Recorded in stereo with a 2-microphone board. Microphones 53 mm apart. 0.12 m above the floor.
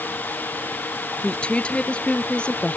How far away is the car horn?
I don't hear a car horn.